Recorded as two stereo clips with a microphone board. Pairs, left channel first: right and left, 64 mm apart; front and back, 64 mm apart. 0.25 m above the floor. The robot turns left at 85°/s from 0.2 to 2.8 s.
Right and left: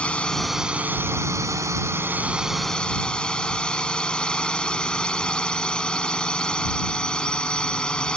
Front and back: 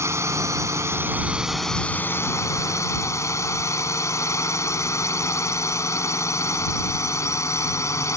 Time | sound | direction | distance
0.0 | a drone | 155° right | ?